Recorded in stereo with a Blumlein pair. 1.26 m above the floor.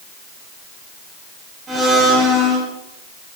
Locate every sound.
1.7 s a blender: 20° right, 8.5 m